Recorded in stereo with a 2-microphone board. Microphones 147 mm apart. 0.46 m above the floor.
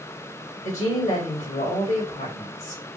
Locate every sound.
0.6 s a woman speaking: 65° left (ahead or behind), 3 m